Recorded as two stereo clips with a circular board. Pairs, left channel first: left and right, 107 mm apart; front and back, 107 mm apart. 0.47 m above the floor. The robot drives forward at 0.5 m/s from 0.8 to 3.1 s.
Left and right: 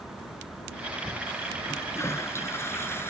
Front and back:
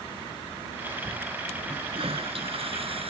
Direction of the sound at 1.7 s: 155° left.